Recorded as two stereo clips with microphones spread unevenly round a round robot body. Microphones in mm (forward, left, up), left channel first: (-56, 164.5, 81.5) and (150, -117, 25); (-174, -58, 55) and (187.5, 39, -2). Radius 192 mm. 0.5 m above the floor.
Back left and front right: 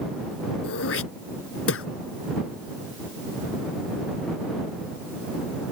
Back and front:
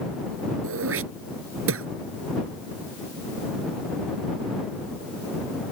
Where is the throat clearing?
75° left.